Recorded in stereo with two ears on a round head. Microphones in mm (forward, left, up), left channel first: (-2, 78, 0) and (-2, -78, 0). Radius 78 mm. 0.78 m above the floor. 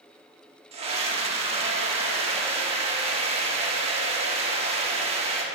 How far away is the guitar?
I don't hear a guitar.